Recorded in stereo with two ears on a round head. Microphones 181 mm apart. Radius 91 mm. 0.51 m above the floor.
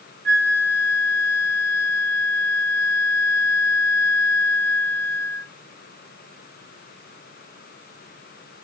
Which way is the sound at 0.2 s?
50° right (ahead or behind).